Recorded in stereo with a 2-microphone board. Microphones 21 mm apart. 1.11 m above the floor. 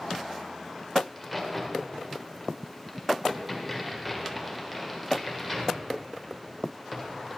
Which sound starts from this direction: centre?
A crack, at 1.1 s.